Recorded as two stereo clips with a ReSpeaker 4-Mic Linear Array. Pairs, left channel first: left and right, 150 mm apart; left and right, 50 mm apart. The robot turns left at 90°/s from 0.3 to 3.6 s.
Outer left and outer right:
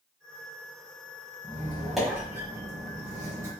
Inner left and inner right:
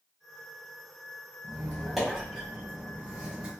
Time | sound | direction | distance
1.4 | a squeak | 20° left (ahead or behind) | 1.2 m